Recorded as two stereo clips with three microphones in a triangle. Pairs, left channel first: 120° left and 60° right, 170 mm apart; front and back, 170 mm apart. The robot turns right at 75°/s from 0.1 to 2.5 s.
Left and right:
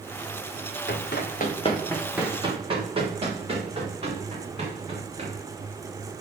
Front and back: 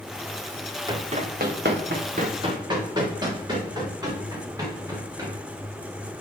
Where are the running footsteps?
110° left, 1.6 m; by 5.3 s 110° right, 5 m.